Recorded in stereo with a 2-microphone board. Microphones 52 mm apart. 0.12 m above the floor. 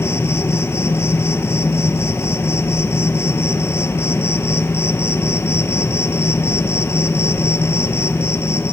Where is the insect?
60° left (ahead or behind), 0.8 m.